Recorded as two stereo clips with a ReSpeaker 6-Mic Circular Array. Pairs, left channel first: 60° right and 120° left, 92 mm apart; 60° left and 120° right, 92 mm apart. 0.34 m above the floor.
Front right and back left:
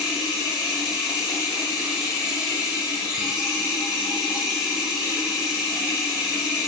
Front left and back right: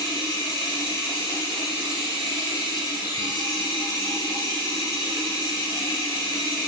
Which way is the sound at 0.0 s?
45° left.